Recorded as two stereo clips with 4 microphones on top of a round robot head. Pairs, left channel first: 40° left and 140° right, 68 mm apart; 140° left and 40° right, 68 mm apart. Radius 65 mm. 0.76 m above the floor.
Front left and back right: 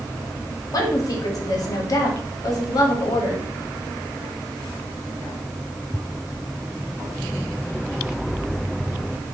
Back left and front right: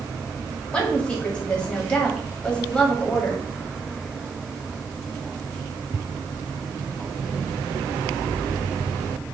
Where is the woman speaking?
65° left, 1.2 m.